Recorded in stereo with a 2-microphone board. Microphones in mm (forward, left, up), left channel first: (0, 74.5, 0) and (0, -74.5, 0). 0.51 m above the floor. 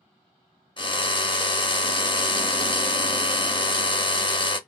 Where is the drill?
35° left (ahead or behind), 0.7 m.